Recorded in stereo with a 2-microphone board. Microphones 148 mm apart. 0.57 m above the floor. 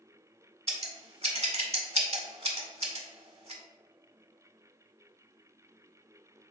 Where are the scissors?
45° right (ahead or behind), 0.7 m.